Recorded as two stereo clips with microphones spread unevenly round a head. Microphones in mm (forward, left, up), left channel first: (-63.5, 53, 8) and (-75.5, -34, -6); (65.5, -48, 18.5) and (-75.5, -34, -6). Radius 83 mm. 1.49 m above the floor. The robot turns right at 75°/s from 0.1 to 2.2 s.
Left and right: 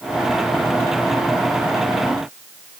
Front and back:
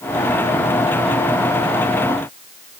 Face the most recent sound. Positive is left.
No sound to turn to.